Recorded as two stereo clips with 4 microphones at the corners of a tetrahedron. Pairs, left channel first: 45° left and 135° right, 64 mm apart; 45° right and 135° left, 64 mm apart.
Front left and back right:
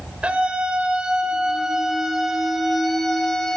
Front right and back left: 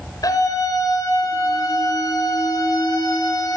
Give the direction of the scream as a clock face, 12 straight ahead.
2 o'clock.